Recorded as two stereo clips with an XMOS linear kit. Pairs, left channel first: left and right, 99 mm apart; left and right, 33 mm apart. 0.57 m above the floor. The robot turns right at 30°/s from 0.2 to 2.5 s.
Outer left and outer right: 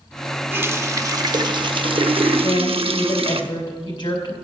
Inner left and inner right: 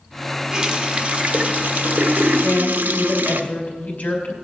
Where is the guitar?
No guitar in this recording.